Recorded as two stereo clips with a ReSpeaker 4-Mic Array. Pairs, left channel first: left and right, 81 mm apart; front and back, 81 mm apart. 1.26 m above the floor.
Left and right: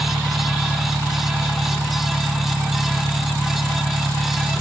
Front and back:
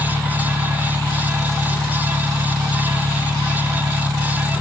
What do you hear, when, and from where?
0.0 s an engine running: 155° right